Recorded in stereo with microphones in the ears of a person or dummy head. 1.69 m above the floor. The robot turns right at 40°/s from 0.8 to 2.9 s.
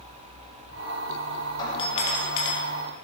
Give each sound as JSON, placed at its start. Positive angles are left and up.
{"t": 1.6, "sound": "a doorbell", "azimuth_deg": 20, "distance_m": 4.0}